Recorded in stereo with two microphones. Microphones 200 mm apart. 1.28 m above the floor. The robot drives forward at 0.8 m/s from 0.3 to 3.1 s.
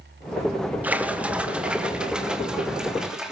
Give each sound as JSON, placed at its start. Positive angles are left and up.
{"t": 0.8, "sound": "a splash", "side_deg": -10, "distance_m": 1.5}